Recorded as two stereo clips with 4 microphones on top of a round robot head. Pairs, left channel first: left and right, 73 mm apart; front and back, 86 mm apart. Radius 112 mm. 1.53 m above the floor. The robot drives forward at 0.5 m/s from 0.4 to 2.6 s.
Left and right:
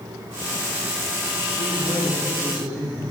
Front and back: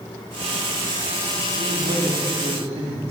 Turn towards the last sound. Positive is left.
turn(degrees=180)